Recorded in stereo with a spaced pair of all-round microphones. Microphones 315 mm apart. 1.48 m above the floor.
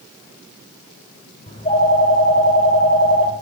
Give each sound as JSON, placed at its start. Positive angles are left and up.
{"t": 1.5, "sound": "a phone ringing", "side_deg": 20, "distance_m": 4.5}